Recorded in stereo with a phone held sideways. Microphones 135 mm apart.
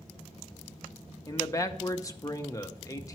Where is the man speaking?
25° left (ahead or behind), 0.8 m.